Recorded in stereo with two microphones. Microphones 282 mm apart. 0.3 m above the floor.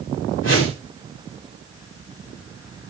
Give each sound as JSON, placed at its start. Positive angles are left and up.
{"t": 0.4, "sound": "a whoosh", "side_deg": 45, "distance_m": 6.0}